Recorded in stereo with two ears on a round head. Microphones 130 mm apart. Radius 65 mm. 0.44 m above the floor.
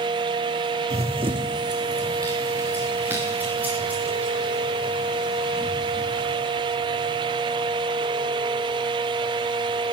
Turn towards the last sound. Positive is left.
turn(degrees=-5)  # may be behind; listen again after turning